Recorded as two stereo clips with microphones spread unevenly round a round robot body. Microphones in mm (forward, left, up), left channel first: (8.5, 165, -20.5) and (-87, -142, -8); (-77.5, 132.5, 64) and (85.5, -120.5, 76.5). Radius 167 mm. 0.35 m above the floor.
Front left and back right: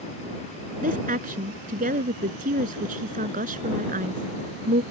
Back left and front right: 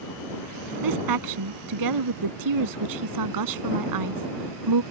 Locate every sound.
0.8 s a woman speaking: 40° right